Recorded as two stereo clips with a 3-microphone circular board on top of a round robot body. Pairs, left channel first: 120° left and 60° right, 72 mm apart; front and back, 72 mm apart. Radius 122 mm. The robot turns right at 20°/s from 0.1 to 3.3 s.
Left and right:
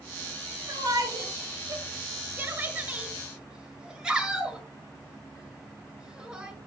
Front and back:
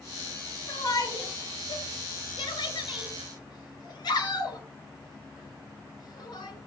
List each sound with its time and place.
0.7 s a shout: 30° right, 6 m; by 6.5 s 20° left, 6 m